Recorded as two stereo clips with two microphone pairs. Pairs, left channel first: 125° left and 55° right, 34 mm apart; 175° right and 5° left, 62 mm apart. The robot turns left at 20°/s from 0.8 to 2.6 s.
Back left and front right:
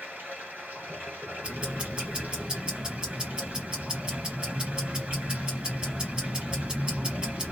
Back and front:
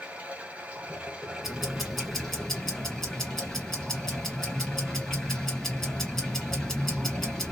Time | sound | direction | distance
0.0 | running water | 60° right | 2 m
1.4 | ticking | 75° right | 1.8 m